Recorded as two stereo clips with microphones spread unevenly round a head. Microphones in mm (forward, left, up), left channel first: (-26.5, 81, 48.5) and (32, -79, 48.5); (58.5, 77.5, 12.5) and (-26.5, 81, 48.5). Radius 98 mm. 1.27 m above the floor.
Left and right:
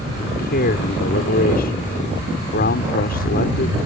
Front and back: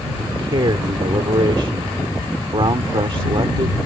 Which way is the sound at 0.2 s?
150° left.